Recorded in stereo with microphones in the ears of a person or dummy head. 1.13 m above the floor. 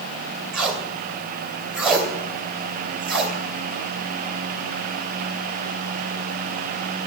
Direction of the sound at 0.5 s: Centre (ahead or behind).